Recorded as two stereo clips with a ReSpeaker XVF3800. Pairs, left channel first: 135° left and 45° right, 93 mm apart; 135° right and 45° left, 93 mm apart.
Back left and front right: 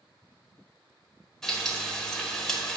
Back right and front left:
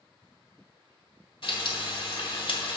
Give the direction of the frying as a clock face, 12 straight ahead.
5 o'clock.